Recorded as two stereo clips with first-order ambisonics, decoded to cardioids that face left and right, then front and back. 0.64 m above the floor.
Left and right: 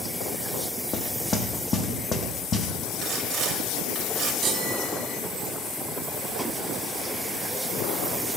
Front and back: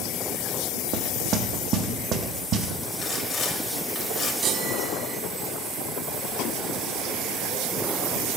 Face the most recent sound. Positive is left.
turn(degrees=-140)